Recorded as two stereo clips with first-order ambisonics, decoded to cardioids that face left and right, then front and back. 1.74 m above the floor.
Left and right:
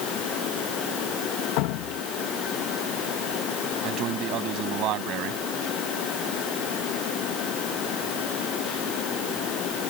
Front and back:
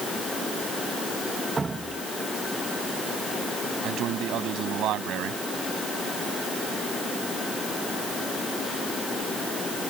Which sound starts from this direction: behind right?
A man speaking, at 3.8 s.